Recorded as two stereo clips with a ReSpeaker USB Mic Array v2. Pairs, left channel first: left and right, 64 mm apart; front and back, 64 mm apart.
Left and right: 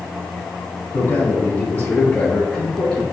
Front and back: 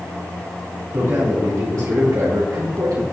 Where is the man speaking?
135° left, 2.5 m; by 3.0 s 170° left, 2.5 m.